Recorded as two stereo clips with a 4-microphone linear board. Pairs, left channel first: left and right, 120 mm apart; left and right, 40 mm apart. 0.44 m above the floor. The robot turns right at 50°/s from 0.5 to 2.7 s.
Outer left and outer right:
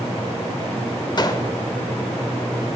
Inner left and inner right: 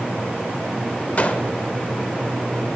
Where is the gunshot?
35° left (ahead or behind), 0.8 m; by 1.5 s 25° left (ahead or behind), 0.8 m.